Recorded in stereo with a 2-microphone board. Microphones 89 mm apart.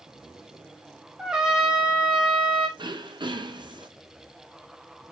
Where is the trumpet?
5° right (ahead or behind), 1.2 m.